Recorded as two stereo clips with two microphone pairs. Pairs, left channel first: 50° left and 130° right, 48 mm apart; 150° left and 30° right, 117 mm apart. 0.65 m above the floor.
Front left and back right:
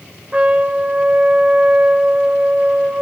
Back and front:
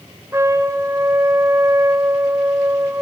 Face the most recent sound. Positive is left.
turn(degrees=-80)